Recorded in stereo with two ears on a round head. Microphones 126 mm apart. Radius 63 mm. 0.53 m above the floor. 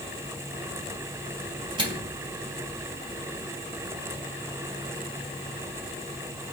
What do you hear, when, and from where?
1.8 s a microwave: 35° right (ahead or behind), 3.5 m